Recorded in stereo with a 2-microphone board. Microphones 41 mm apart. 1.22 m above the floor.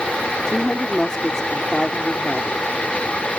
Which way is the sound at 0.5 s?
15° left (ahead or behind).